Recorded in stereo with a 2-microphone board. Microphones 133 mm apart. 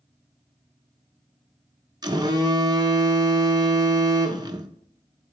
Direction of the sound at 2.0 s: 30° right (ahead or behind).